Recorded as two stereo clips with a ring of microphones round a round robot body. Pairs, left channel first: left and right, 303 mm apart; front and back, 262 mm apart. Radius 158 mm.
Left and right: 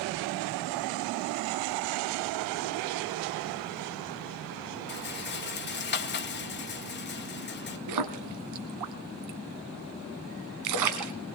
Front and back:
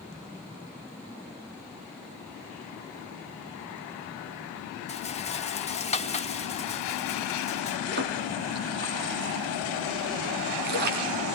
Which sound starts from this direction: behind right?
A splash, at 7.9 s.